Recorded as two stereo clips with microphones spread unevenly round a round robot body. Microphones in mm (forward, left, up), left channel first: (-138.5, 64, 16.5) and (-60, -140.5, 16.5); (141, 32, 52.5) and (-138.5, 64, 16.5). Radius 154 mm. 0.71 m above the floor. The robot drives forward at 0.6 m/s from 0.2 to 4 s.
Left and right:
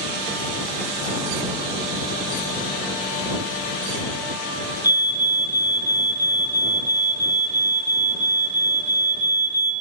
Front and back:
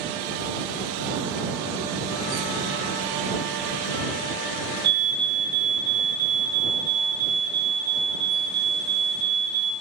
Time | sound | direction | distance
4.8 | a fire alarm | 145° right | 3 m